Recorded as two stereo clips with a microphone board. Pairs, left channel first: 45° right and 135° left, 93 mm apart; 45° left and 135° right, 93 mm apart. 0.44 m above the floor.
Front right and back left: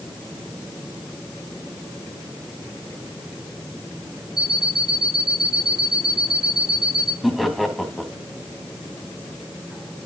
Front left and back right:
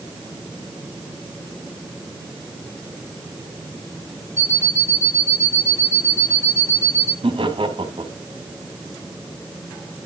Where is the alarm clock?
115° left, 3 m.